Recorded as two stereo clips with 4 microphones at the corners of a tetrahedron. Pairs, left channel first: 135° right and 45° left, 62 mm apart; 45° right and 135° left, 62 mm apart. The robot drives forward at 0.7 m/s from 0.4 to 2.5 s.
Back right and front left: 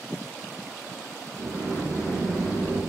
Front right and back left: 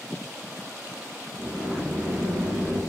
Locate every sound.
1.4 s a sliding door: 150° right, 1.9 m; by 2.8 s 160° right, 2.5 m